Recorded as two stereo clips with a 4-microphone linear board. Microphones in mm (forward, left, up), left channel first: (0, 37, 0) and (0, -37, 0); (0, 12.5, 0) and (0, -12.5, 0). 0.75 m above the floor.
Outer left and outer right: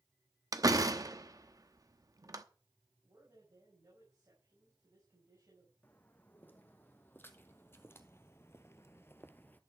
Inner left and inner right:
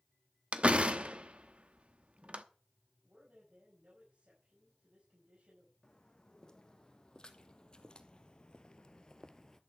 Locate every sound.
0.5 s a door slam: 55° right (ahead or behind), 0.9 m
3.0 s a man speaking: 55° right (ahead or behind), 5.5 m
5.8 s footsteps: 25° left (ahead or behind), 2.5 m